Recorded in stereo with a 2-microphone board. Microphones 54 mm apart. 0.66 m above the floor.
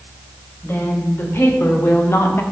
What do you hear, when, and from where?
0.6 s a woman speaking: 45° left (ahead or behind), 2 m